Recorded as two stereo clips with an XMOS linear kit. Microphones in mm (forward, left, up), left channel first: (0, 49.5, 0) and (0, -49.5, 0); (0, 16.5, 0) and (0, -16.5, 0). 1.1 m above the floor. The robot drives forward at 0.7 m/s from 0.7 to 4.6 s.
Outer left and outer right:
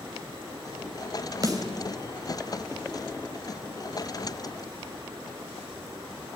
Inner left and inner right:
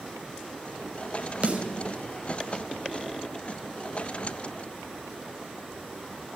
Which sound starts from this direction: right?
A snare drum, at 1.4 s.